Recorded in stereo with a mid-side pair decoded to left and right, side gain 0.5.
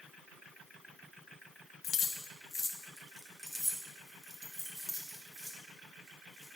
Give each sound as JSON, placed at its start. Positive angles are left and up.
{"t": 1.8, "sound": "keys jangling", "azimuth_deg": 50, "distance_m": 1.2}